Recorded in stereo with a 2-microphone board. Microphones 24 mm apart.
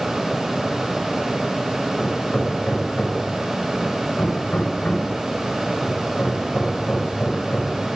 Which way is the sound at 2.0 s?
75° left (ahead or behind).